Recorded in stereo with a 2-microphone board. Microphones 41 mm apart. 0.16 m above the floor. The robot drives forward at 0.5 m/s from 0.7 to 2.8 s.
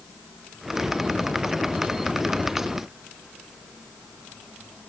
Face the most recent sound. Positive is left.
No sound to turn to.